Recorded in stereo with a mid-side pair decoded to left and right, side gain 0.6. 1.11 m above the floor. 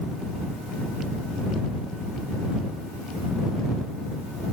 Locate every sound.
Only background noise.